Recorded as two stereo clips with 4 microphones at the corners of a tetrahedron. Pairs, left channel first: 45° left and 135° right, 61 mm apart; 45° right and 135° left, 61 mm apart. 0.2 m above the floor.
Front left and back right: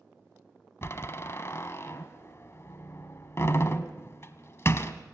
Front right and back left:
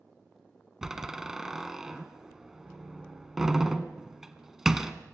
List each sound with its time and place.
0.8 s a door slam: 55° left, 1.3 m